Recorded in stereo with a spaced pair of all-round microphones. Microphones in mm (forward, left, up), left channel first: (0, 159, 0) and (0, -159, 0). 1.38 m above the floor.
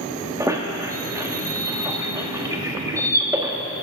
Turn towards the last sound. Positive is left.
turn(degrees=-10)  # may be behind; listen again after turning